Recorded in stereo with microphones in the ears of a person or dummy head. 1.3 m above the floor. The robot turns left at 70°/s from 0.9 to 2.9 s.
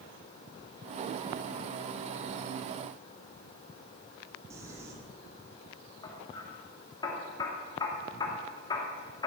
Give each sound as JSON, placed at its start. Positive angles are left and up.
{"t": 4.5, "sound": "crumpling", "side_deg": -15, "distance_m": 3.0}
{"t": 6.0, "sound": "hammering", "side_deg": 25, "distance_m": 2.5}